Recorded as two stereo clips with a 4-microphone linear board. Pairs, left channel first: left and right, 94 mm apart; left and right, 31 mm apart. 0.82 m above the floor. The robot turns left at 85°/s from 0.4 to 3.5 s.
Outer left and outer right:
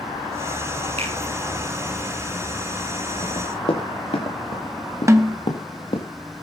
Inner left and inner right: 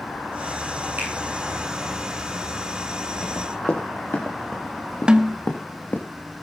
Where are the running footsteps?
50° left (ahead or behind), 5.5 m; by 6.0 s 65° left (ahead or behind), 4.5 m.